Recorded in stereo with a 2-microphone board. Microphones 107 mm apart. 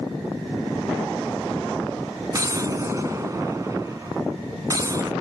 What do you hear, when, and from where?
2.3 s an explosion: 35° right (ahead or behind)